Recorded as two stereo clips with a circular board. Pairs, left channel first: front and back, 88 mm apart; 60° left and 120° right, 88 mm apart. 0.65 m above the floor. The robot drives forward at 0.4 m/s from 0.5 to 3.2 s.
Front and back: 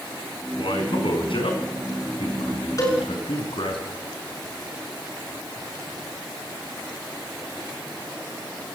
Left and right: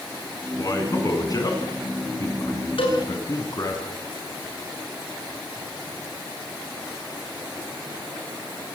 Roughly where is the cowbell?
Ahead left.